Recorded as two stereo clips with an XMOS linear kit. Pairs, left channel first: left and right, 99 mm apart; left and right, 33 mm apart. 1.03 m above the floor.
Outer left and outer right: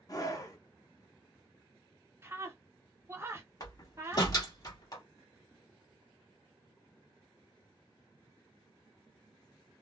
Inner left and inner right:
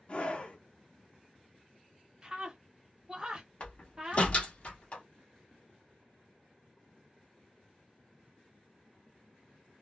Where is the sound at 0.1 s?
35° left (ahead or behind), 0.9 m.